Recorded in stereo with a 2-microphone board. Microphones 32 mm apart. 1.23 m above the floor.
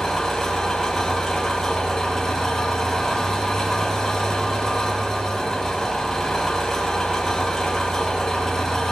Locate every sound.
0.0 s an engine running: 20° left (ahead or behind), 3.5 m